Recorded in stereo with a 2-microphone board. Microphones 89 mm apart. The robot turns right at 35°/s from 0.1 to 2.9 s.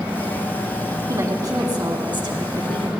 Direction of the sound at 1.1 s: 140° right.